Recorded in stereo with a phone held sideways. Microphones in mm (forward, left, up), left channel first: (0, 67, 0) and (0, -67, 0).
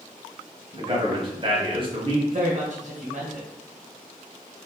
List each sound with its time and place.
0.7 s a man speaking: 35° right (ahead or behind), 1.1 m
2.3 s a woman speaking: 55° right (ahead or behind), 1.3 m